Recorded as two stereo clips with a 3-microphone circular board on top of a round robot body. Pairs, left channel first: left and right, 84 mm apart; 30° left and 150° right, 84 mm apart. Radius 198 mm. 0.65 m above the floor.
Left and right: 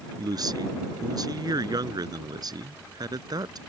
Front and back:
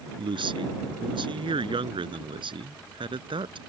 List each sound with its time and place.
0.2 s a man speaking: 130° right